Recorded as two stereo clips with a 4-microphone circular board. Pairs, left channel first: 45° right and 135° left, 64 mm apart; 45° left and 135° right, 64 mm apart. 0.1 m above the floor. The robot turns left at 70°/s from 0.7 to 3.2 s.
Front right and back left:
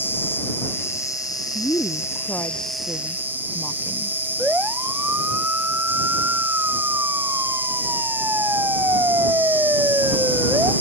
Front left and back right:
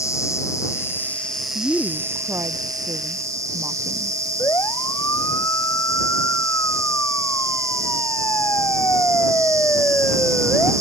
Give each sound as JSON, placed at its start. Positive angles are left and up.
{"t": 0.0, "sound": "an insect", "azimuth_deg": 10}
{"t": 1.6, "sound": "a woman speaking", "azimuth_deg": -40}
{"t": 4.4, "sound": "a siren", "azimuth_deg": 70}